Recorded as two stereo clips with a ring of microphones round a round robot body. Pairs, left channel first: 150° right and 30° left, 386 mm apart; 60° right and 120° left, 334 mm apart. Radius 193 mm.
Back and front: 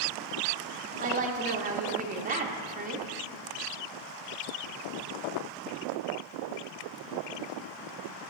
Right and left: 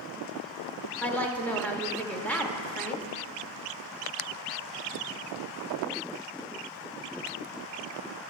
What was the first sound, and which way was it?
A woman speaking, 15° left.